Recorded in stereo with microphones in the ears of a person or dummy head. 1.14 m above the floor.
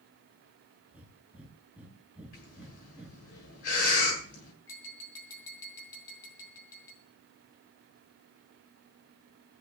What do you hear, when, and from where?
0.9 s breathing: 5° right (ahead or behind), 2.5 m
2.3 s breathing: 45° left (ahead or behind), 7 m
4.7 s tapping: 20° left (ahead or behind), 3.5 m